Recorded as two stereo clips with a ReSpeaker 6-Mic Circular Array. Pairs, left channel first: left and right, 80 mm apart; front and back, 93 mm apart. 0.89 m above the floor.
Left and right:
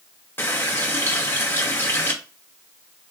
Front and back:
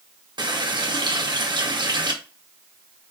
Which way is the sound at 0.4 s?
150° left.